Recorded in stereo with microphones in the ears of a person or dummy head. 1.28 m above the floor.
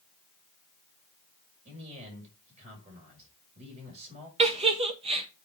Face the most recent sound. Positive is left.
turn(degrees=-30)  # may be behind; listen again after turning